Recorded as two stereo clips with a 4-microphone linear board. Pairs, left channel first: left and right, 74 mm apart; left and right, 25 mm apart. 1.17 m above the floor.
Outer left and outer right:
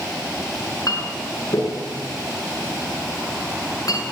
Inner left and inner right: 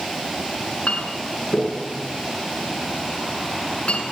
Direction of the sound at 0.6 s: 50° left (ahead or behind).